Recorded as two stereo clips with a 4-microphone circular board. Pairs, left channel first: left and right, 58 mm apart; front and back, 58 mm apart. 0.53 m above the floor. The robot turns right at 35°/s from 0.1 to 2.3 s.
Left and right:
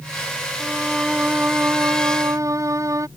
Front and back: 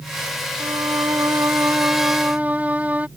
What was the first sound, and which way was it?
A violin, 175° right.